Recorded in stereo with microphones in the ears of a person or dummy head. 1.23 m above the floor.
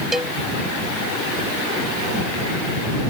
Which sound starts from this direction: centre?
A cowbell, at 0.1 s.